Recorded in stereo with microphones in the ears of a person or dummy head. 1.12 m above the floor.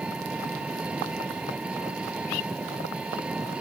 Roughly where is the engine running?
Centre.